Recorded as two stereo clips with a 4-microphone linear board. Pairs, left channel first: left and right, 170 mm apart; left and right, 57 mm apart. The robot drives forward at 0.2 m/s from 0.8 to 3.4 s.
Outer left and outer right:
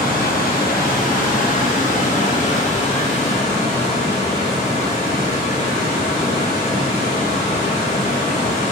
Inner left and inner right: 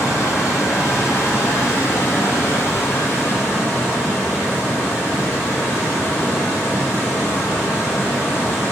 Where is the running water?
60° left (ahead or behind), 1.0 m; by 8.7 s 40° left (ahead or behind), 1.3 m.